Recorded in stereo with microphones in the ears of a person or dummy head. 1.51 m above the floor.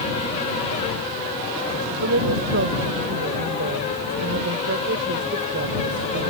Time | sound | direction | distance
2.0 | a woman speaking | 65° right (ahead or behind) | ?